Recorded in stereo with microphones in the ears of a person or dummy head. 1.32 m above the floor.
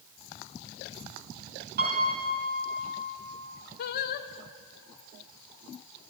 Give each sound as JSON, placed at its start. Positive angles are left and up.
{"t": 1.8, "sound": "a piano", "side_deg": -50, "distance_m": 4.0}
{"t": 3.8, "sound": "singing", "side_deg": 50, "distance_m": 0.7}